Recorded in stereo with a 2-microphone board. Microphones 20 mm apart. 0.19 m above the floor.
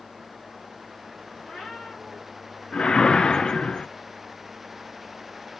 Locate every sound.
1.4 s a cat meowing: 85° left, 3.5 m
2.7 s a whoosh: 45° left (ahead or behind), 0.6 m